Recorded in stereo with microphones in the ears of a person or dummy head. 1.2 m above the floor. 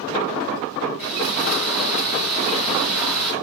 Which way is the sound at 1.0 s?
5° right (ahead or behind).